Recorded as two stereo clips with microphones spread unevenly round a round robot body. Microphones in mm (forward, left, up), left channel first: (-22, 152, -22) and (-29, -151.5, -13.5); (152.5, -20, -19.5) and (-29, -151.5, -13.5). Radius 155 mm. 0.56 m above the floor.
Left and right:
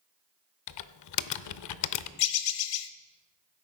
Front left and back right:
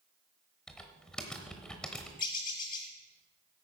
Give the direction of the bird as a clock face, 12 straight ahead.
9 o'clock.